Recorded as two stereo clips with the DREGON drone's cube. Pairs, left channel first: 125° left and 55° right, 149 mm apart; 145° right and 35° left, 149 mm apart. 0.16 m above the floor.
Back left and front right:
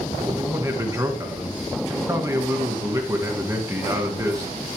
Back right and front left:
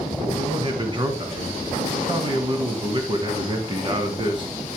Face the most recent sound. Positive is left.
turn(degrees=0)